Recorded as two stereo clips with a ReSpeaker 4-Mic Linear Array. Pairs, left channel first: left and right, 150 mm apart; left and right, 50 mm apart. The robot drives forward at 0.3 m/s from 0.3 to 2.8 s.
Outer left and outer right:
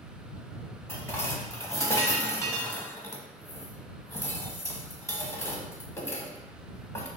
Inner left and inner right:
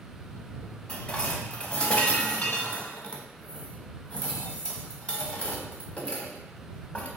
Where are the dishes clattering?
15° left (ahead or behind), 0.8 m; by 7.1 s 20° left (ahead or behind), 0.7 m.